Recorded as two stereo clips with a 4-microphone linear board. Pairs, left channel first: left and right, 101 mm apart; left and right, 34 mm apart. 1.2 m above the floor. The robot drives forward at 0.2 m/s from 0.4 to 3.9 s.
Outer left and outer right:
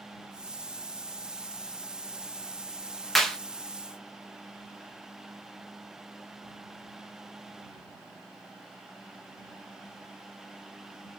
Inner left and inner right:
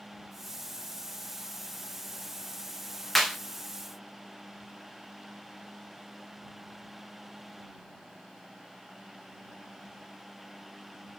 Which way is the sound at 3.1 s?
5° left (ahead or behind).